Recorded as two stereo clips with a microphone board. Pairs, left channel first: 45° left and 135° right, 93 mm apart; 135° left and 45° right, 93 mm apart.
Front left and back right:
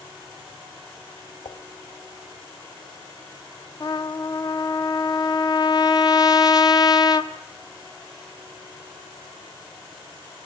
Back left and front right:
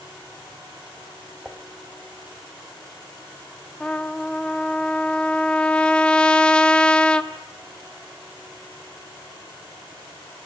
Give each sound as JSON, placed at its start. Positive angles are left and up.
{"t": 1.4, "sound": "dishes clattering", "azimuth_deg": 40, "distance_m": 1.0}
{"t": 3.8, "sound": "a trumpet", "azimuth_deg": 60, "distance_m": 0.9}